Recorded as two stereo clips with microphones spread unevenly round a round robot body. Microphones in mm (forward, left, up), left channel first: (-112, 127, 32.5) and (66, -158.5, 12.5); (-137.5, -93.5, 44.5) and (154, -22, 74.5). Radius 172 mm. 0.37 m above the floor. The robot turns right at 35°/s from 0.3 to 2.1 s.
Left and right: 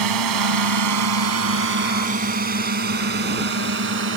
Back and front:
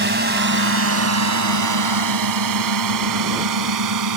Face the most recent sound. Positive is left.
turn(degrees=0)